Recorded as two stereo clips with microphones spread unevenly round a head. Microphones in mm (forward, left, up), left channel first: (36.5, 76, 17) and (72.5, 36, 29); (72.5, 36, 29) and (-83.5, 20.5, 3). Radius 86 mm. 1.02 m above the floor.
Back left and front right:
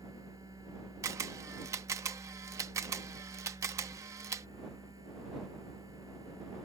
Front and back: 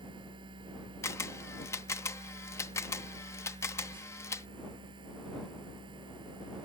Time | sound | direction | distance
0.0 | a machine running | 110° right | ?
1.0 | a camera shutter | 65° right | ?